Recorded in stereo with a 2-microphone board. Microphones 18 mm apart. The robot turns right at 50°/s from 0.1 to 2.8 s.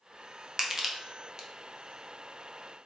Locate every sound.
0.6 s crushing: 25° right (ahead or behind), 0.6 m; by 1.5 s 35° right (ahead or behind), 0.6 m